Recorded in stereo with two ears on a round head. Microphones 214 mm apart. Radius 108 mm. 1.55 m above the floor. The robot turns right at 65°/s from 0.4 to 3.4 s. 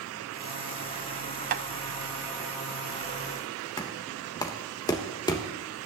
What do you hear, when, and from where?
1.5 s tapping: 35° right (ahead or behind), 0.6 m; by 1.6 s 30° right (ahead or behind), 0.6 m
3.8 s knocking: 15° left (ahead or behind), 1.2 m